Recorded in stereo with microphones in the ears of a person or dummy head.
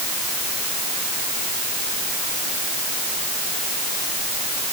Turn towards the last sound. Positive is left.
No sound to turn to.